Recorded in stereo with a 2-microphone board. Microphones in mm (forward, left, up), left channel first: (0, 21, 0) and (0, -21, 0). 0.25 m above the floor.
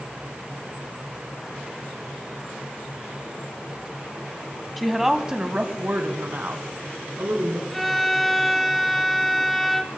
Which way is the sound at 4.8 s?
Centre (ahead or behind).